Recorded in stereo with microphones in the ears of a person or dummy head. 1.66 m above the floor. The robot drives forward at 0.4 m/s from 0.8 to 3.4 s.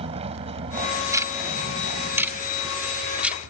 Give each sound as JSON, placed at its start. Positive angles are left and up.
{"t": 0.0, "sound": "a vehicle", "side_deg": -35}
{"t": 1.1, "sound": "ticking", "side_deg": -15}